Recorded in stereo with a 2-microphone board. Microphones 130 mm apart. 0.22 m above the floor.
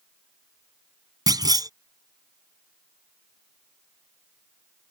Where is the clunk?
30° right (ahead or behind).